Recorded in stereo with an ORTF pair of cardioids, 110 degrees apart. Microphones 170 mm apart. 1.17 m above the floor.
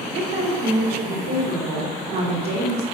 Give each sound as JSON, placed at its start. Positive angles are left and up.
{"t": 0.1, "sound": "a woman speaking", "azimuth_deg": -70, "distance_m": 3.0}